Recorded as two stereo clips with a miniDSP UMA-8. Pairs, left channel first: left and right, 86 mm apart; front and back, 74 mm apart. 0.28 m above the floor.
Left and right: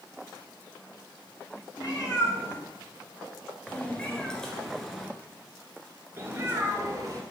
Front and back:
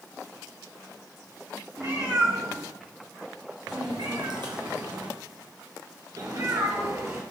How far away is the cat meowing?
About 3 m.